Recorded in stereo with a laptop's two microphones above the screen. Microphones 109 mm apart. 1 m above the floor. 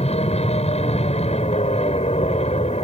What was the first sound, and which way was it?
An aircraft, 75° left (ahead or behind).